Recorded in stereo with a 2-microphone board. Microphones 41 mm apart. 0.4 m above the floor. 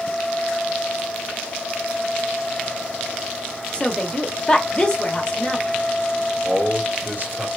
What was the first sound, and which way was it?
A woman speaking, 25° left (ahead or behind).